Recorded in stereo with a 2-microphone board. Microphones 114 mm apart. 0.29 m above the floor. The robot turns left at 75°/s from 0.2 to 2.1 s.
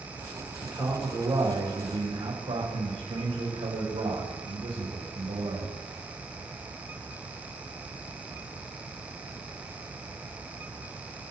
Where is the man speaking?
10° left, 6.5 m; by 5.7 s 100° right, 6.5 m.